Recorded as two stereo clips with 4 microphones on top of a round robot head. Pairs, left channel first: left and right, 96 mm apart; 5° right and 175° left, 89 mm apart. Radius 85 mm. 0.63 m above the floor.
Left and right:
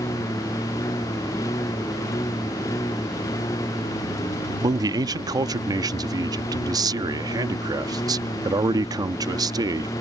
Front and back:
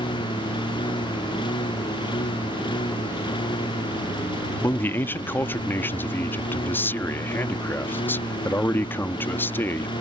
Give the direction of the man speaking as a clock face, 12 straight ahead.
2 o'clock.